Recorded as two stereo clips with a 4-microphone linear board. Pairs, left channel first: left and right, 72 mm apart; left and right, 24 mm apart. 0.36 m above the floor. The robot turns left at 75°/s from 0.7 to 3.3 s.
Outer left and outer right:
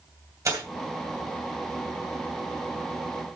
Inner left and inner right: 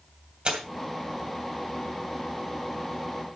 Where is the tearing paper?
45° right (ahead or behind), 2.5 m.